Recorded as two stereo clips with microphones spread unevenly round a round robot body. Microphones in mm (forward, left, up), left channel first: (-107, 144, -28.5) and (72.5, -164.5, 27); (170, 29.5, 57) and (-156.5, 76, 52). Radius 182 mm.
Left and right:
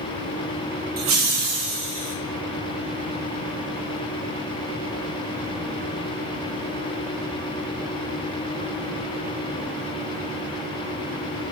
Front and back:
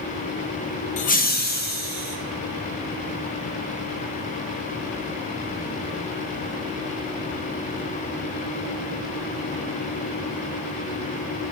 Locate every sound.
1.0 s laughter: 15° right, 0.5 m; by 2.1 s 70° right, 1.2 m